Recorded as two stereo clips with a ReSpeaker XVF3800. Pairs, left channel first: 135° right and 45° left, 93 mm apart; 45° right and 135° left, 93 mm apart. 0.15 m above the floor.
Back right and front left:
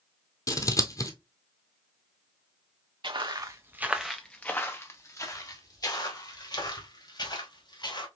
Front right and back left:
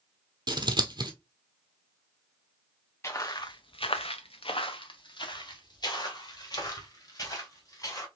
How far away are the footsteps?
About 0.8 m.